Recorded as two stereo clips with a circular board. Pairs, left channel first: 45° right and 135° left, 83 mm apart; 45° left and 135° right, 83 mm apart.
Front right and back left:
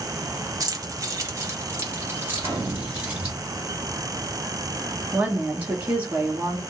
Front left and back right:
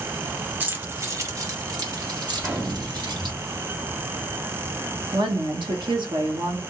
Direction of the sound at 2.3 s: 160° left.